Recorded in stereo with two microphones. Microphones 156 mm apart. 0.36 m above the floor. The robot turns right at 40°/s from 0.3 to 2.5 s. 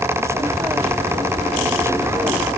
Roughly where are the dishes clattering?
No dishes clattering in this recording.